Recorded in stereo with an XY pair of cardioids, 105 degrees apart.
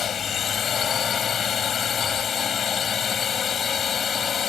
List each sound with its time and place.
0.0 s a drone: 50° left; by 4.5 s 45° left